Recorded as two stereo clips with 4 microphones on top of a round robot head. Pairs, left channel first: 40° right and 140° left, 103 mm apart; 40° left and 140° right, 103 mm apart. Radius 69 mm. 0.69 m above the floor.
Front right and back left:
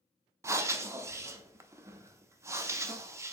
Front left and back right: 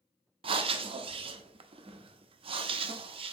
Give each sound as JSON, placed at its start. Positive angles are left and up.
{"t": 0.4, "sound": "breathing", "azimuth_deg": -160, "distance_m": 0.5}